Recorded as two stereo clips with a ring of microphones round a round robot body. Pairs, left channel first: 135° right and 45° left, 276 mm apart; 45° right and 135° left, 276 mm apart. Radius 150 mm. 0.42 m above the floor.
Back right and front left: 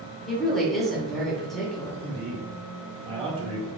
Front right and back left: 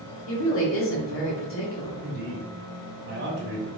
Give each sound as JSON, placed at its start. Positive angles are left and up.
{"t": 0.3, "sound": "a woman speaking", "azimuth_deg": -45, "distance_m": 1.6}
{"t": 2.0, "sound": "a man speaking", "azimuth_deg": 105, "distance_m": 1.6}